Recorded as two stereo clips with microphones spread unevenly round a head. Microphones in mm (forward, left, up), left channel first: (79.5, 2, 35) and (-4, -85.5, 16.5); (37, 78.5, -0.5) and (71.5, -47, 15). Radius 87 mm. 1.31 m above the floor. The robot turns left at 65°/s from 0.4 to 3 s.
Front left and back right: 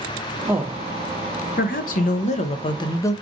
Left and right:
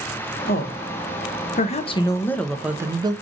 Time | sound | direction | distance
0.5 | a woman speaking | 145° left | 0.8 m